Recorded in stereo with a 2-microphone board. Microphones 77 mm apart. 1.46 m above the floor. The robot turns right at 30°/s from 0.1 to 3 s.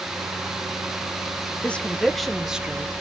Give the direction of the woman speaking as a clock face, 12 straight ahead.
7 o'clock.